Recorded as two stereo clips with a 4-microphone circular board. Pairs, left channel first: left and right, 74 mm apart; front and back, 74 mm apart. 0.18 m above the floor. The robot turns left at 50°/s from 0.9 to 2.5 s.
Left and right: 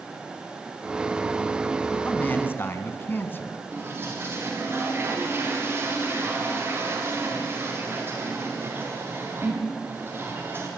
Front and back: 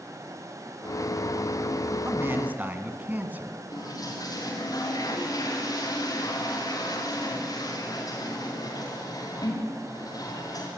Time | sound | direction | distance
2.0 | a man speaking | 150° left | 2.0 m
3.7 | a toilet flushing | 30° right | 5 m